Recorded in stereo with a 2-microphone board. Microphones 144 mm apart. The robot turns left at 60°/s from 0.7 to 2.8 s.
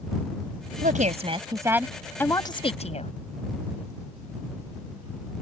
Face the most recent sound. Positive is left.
turn(degrees=130)